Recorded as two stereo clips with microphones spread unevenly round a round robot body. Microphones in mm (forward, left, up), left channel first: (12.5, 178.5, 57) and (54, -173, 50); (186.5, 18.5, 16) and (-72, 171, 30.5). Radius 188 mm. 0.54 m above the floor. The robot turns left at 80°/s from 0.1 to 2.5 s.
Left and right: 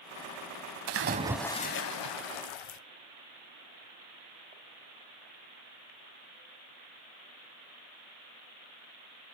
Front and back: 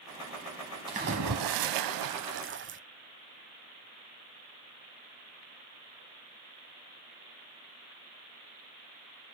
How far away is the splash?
About 0.8 m.